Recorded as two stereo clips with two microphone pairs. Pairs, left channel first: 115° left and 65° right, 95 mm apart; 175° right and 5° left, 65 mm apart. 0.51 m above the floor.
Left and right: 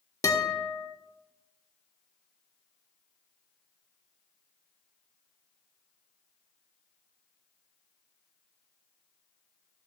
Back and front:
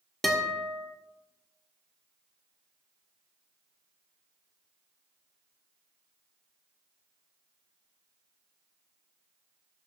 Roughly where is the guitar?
Left.